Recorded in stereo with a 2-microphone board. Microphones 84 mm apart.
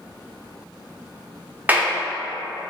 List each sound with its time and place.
1.7 s a clap: 20° right (ahead or behind), 0.6 m